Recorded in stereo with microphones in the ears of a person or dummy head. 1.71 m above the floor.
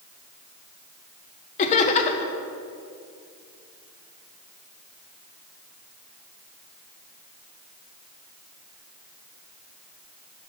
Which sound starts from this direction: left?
Laughter, at 1.6 s.